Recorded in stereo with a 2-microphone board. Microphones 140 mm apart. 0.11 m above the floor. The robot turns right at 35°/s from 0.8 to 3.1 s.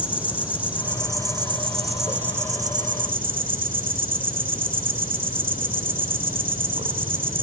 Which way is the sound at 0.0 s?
170° right.